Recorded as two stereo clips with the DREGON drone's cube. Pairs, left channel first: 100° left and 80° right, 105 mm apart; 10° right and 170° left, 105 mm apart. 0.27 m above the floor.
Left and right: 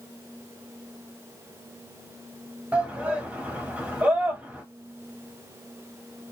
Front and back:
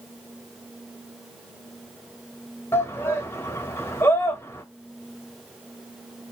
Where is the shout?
25° right, 1.1 m.